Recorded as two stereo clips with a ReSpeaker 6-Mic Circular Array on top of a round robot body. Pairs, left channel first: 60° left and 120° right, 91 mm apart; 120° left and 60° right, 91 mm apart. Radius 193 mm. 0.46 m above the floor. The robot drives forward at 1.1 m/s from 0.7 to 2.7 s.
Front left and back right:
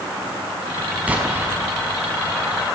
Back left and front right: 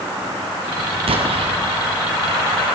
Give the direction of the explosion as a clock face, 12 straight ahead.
1 o'clock.